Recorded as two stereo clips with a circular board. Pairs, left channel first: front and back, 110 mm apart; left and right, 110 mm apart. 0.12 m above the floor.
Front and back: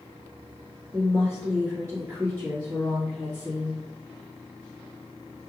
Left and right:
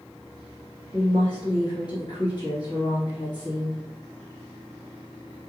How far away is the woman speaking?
About 1.9 m.